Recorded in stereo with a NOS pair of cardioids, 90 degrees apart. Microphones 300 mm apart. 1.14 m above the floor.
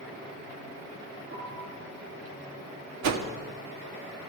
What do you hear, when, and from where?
1.3 s a piano: 45° right, 8.5 m
3.0 s a whoosh: 60° right, 1.4 m